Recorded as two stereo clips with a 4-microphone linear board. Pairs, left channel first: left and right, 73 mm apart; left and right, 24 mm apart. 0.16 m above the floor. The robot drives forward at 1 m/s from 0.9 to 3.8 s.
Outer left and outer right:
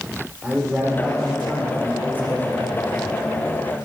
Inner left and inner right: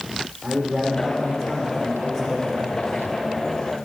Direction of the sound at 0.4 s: 20° left (ahead or behind).